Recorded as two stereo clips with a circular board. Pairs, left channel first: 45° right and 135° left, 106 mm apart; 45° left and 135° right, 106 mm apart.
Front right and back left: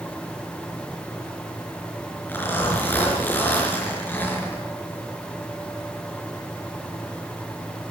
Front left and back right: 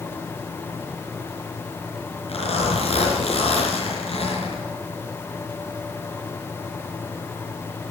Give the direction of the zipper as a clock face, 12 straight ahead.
11 o'clock.